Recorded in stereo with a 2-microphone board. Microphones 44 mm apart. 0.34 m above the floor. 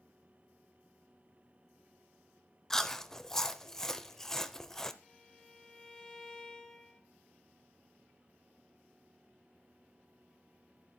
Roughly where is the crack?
No crack in this recording.